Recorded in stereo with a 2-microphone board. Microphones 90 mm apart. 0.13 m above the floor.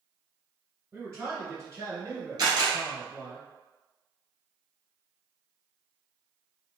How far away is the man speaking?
About 1.9 m.